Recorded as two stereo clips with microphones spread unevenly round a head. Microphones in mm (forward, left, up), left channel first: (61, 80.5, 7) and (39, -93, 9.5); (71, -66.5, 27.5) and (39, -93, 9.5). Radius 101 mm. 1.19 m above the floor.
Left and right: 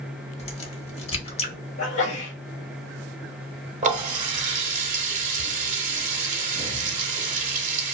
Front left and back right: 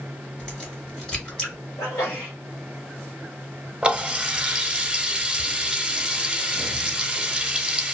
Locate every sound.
0.4 s a crack: 60° left, 0.8 m
1.8 s a sneeze: 95° left, 1.1 m
3.8 s a running tap: 60° right, 0.7 m